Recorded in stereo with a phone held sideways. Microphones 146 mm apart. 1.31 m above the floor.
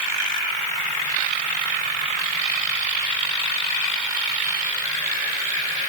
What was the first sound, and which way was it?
Only background noise.